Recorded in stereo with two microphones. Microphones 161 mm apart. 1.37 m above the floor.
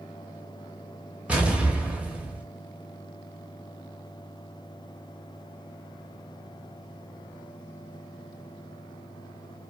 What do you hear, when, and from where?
1.3 s an explosion: 10° right (ahead or behind), 0.6 m